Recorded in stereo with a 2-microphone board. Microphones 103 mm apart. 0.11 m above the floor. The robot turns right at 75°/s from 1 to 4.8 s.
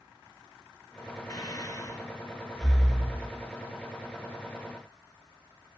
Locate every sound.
1.3 s breathing: 35° left (ahead or behind), 1.1 m; by 3.3 s 20° right (ahead or behind), 1.1 m